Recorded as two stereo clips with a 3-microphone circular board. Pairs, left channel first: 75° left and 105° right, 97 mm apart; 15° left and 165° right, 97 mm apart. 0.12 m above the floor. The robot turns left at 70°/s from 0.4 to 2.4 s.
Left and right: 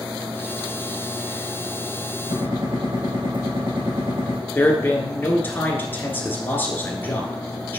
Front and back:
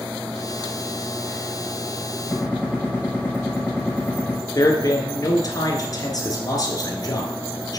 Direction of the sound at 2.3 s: 85° right.